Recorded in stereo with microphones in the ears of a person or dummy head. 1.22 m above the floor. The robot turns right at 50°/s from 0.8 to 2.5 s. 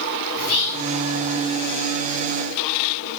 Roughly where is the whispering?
Left.